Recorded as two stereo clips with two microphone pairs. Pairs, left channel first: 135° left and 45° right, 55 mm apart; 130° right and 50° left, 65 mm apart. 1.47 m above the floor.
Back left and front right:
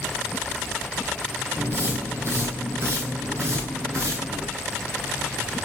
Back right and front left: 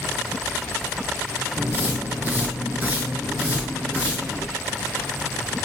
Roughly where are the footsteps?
Ahead.